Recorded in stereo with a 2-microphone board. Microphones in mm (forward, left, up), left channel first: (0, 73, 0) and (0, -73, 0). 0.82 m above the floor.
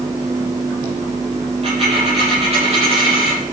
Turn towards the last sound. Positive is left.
turn(degrees=-45)  # may be behind; listen again after turning